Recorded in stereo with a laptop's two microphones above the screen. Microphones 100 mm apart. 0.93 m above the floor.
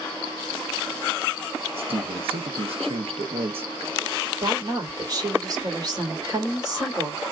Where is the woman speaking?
40° right (ahead or behind), 3 m.